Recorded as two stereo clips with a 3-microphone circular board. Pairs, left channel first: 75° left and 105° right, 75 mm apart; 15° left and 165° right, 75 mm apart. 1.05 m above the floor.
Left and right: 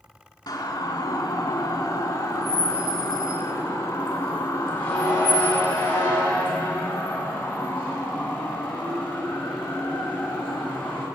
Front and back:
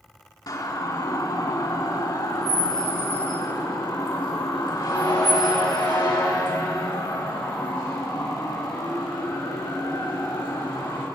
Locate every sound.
0.5 s a siren: 45° left, 2.5 m; by 11.1 s straight ahead, 7 m